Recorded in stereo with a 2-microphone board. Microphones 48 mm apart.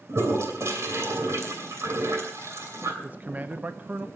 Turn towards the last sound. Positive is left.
turn(degrees=-35)  # may be behind; listen again after turning